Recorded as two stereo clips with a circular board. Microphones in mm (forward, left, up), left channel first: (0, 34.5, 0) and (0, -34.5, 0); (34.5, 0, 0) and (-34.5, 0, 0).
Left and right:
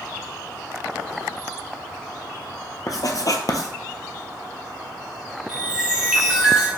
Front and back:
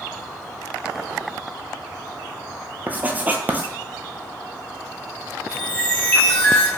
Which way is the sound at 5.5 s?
25° right.